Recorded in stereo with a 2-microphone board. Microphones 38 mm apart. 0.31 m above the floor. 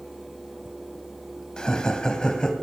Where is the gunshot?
No gunshot in this recording.